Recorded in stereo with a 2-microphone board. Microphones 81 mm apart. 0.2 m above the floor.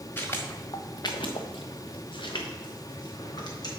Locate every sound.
0.2 s footsteps: 25° left (ahead or behind), 1.2 m; by 3.7 s 50° left (ahead or behind), 2.5 m